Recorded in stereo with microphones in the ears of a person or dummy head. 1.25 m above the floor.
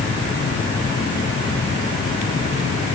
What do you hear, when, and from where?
Only background noise.